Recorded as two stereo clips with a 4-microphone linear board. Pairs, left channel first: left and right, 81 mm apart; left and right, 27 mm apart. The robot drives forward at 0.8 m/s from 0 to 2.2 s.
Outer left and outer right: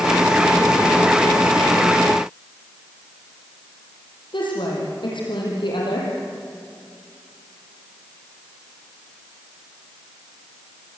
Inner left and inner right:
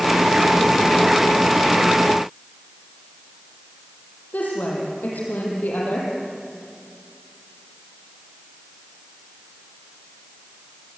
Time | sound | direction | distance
4.3 | a woman speaking | 80° left | 7.5 m